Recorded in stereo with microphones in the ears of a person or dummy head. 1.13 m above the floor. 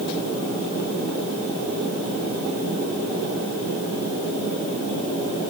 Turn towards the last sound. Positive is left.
No sound to turn to.